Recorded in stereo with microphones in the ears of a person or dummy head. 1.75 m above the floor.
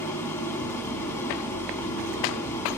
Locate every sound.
0.0 s an engine running: 10° left (ahead or behind), 2.5 m